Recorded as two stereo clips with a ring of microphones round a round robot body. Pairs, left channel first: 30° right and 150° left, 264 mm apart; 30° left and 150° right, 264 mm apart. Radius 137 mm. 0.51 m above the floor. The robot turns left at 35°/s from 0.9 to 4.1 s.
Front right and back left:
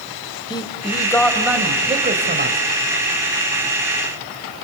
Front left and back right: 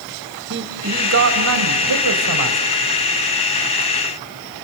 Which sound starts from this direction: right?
A man speaking, at 0.5 s.